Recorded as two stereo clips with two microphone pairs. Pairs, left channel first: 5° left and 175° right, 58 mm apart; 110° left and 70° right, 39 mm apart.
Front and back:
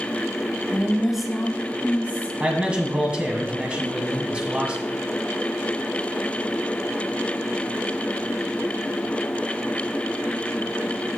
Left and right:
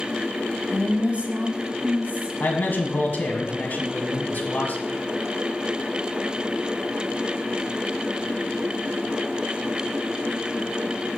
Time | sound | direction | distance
0.7 | a woman speaking | 115° right | 1.3 m
2.4 | a man speaking | 120° left | 1.7 m